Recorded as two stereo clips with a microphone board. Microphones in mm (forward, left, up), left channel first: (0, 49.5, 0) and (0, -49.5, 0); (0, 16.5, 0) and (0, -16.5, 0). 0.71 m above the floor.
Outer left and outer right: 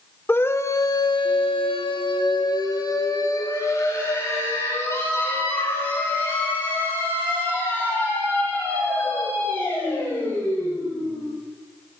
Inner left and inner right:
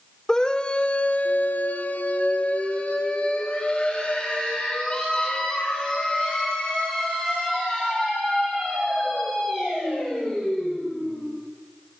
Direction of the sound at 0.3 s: 20° left (ahead or behind).